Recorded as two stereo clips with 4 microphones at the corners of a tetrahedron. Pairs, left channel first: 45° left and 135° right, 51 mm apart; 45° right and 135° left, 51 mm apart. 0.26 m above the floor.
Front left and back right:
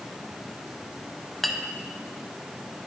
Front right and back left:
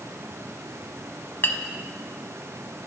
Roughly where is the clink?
Ahead right.